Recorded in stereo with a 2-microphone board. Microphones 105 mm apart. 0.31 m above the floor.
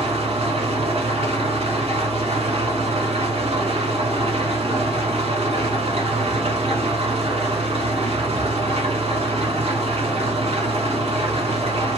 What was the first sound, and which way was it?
An engine running, 70° right (ahead or behind).